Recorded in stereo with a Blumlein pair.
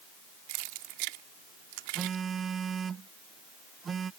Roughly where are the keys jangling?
Ahead right.